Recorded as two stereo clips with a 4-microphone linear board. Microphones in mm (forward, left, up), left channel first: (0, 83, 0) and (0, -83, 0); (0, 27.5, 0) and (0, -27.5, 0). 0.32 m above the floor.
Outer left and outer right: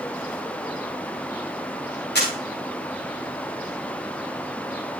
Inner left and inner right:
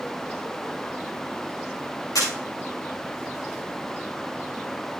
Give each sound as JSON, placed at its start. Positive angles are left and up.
{"t": 2.1, "sound": "a camera shutter", "side_deg": 85, "distance_m": 5.0}